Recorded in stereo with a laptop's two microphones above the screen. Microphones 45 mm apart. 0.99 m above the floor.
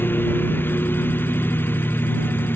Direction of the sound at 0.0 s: 55° left (ahead or behind).